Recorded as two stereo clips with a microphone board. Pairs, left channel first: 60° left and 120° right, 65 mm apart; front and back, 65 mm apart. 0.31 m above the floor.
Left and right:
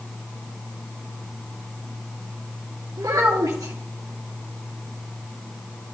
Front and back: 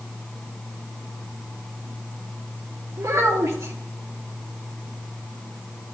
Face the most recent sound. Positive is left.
turn(degrees=-145)